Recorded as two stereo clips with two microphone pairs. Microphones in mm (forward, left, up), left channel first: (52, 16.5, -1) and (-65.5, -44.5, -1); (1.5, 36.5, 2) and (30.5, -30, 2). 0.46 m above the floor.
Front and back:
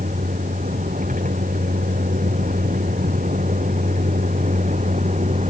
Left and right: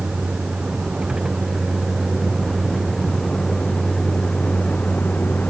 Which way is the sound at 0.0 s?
145° right.